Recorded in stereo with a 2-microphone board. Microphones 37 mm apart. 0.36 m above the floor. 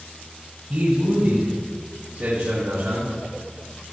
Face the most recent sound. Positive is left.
turn(degrees=-70)  # may be behind; listen again after turning